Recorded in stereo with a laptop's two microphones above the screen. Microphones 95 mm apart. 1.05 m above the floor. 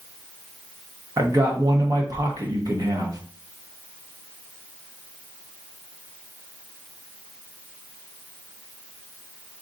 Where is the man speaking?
40° right (ahead or behind), 1.0 m.